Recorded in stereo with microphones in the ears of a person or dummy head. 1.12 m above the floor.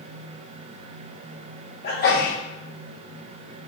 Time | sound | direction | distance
1.8 | a sneeze | 55° left (ahead or behind) | 1.1 m